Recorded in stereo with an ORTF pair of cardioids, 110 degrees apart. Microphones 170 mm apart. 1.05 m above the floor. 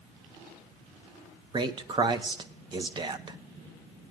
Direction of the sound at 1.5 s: 25° right.